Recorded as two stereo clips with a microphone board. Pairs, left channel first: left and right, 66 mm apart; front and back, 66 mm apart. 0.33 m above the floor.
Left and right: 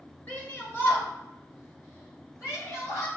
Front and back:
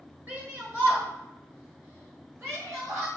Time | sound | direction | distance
0.3 | a shout | 130° left | 1.7 m